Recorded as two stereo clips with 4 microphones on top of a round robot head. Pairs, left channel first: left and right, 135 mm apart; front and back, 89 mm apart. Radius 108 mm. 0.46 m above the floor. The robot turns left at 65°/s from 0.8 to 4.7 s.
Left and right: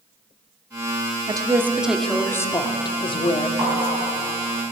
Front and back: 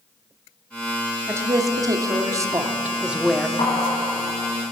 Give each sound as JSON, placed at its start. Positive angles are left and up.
{"t": 1.3, "sound": "a woman speaking", "azimuth_deg": -135, "distance_m": 0.8}
{"t": 3.6, "sound": "tapping", "azimuth_deg": -20, "distance_m": 3.0}